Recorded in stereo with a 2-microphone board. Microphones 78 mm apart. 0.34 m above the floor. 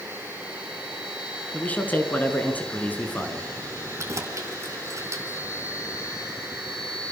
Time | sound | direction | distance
1.5 | a man speaking | 20° left (ahead or behind) | 4.5 m
4.0 | keys jangling | 40° right (ahead or behind) | 2.5 m